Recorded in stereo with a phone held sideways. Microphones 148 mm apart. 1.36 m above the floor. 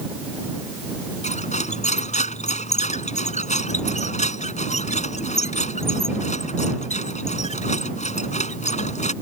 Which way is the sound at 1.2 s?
50° left (ahead or behind).